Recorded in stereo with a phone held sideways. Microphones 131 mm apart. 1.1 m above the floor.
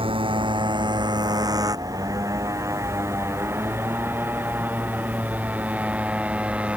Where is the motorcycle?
45° right (ahead or behind); by 6.8 s 10° right (ahead or behind).